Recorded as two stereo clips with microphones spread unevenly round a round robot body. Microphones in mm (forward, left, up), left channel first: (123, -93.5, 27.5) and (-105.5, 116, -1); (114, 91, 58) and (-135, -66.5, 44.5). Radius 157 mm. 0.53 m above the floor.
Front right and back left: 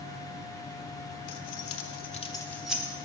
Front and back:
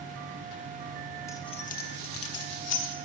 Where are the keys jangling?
50° right, 0.9 m; by 3.0 s 60° left, 1.1 m.